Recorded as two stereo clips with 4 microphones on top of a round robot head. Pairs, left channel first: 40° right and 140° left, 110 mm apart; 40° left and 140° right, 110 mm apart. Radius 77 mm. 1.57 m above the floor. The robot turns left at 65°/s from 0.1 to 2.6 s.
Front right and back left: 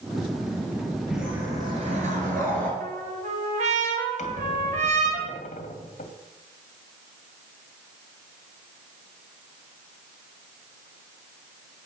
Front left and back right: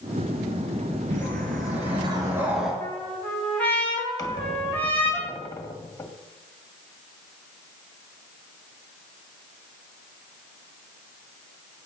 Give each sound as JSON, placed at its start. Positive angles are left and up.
{"t": 1.1, "sound": "a whoosh", "azimuth_deg": -130, "distance_m": 4.5}
{"t": 2.8, "sound": "a trumpet", "azimuth_deg": 120, "distance_m": 3.5}
{"t": 4.2, "sound": "a squeak", "azimuth_deg": -20, "distance_m": 1.9}